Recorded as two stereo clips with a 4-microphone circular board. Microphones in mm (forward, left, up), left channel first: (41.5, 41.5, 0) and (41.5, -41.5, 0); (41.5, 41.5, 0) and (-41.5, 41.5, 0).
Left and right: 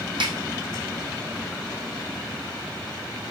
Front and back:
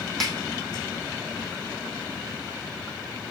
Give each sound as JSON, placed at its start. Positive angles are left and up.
{"t": 0.2, "sound": "a snare drum", "azimuth_deg": -85, "distance_m": 1.6}